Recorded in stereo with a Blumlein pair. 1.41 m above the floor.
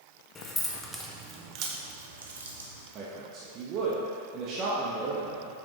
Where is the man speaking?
35° right, 1.3 m.